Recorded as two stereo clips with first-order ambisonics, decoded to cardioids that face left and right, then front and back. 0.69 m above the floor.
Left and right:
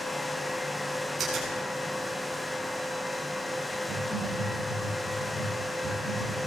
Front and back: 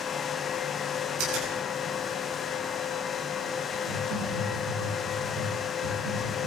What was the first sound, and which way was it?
A finger snap, 160° right.